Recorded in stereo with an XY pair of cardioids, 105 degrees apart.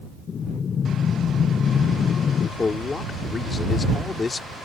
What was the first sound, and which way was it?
Breathing, 50° left.